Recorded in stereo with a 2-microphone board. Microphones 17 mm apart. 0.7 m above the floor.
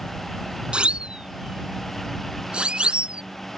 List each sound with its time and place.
0.7 s a siren: 80° right